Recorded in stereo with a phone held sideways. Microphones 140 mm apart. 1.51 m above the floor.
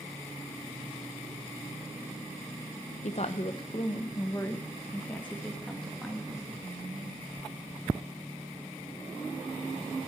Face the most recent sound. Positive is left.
turn(degrees=0)  # may be behind; listen again after turning